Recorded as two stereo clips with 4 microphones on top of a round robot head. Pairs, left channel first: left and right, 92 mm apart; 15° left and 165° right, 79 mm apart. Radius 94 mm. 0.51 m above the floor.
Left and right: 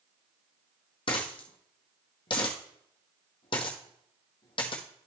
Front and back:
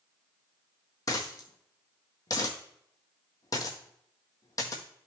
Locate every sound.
1.1 s a dropped coin: 55° left, 1.6 m